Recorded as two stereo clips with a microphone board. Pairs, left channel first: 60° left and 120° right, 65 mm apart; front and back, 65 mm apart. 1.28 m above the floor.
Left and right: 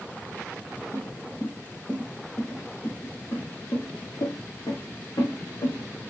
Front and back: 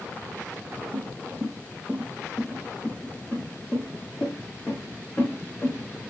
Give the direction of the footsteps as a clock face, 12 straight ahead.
8 o'clock.